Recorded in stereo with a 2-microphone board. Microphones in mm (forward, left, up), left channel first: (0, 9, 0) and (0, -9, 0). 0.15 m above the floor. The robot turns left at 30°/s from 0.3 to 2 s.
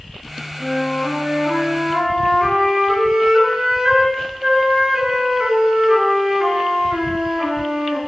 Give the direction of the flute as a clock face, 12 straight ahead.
12 o'clock.